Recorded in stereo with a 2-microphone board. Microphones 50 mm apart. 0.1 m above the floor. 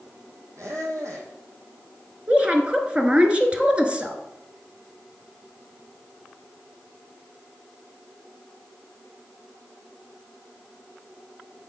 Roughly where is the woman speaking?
Right.